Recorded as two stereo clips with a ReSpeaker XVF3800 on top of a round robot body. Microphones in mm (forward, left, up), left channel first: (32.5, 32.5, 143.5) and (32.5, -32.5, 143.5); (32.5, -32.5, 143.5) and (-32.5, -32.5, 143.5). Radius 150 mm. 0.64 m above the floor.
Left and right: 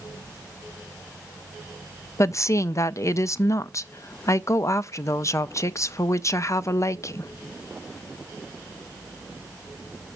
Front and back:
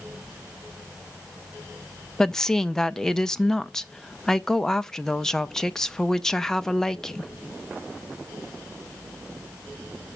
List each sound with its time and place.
2.2 s a woman speaking: 80° left, 0.6 m